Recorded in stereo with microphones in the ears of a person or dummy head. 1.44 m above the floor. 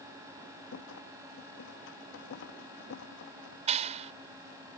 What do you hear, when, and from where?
0.7 s a rattle: 70° left (ahead or behind)
3.7 s a clap: 30° right (ahead or behind)